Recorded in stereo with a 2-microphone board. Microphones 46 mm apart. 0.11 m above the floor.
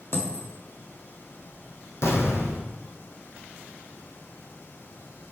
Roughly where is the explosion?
Left.